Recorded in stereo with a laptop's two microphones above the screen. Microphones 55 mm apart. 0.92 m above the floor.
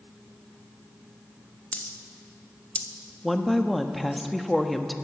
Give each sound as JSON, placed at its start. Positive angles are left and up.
{"t": 1.7, "sound": "a dropped coin", "side_deg": 25, "distance_m": 0.6}
{"t": 3.2, "sound": "a woman speaking", "side_deg": 0, "distance_m": 1.0}